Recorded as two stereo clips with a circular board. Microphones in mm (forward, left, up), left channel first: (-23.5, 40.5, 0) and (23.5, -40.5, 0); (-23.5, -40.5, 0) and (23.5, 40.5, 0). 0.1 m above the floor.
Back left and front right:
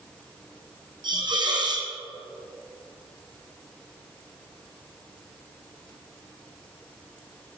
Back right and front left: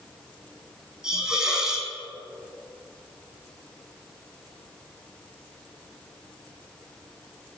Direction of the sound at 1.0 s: 25° right.